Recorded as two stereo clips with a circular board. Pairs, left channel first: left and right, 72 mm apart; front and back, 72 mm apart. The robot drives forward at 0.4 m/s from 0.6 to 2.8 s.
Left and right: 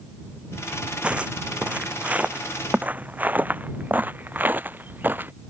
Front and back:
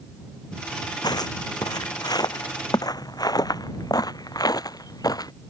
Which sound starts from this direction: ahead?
Footsteps, at 1.0 s.